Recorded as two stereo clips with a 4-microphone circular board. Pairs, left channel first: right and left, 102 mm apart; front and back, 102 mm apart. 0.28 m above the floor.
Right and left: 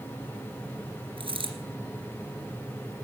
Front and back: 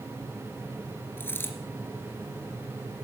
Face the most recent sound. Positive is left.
turn(degrees=70)